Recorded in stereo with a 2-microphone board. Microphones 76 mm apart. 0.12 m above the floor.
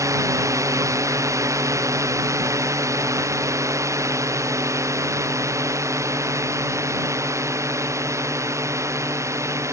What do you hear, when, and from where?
0.0 s a drone: 45° right (ahead or behind); by 9.7 s 40° right (ahead or behind)